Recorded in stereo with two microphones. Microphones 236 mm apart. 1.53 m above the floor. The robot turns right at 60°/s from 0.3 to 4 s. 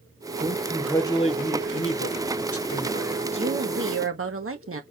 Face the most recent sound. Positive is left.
turn(degrees=-110)